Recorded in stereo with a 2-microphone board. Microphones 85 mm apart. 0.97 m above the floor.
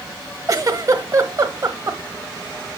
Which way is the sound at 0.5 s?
40° right (ahead or behind).